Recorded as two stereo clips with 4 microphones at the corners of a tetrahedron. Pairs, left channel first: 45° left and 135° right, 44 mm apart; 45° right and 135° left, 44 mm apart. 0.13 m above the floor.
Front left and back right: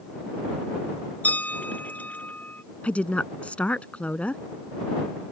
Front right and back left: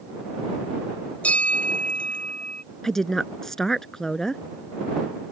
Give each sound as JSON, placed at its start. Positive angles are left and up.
{"t": 1.2, "sound": "a bell", "azimuth_deg": 5}
{"t": 2.8, "sound": "a woman speaking", "azimuth_deg": 25}